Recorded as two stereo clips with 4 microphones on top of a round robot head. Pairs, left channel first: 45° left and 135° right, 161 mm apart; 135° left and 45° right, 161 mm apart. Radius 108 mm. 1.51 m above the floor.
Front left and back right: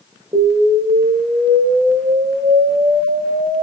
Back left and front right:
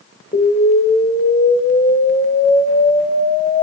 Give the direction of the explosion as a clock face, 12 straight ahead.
7 o'clock.